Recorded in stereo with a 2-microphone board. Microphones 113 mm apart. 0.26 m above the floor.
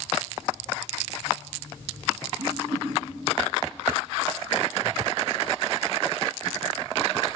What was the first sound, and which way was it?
A whoosh, 85° right.